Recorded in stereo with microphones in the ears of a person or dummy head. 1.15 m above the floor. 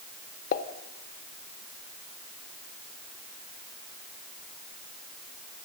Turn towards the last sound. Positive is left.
turn(degrees=50)  # may be behind; listen again after turning